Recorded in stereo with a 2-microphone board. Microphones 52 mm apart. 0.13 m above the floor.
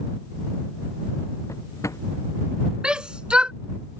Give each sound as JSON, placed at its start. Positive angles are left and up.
{"t": 1.5, "sound": "a drawer", "side_deg": 85}
{"t": 2.8, "sound": "a shout", "side_deg": -20}